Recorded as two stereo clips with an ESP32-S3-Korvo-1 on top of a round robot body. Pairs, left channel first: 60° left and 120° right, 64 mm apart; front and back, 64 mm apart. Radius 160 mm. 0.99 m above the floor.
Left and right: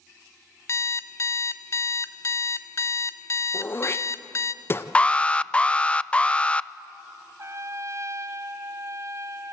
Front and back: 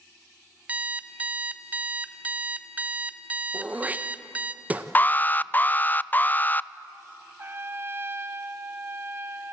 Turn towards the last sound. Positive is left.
turn(degrees=-140)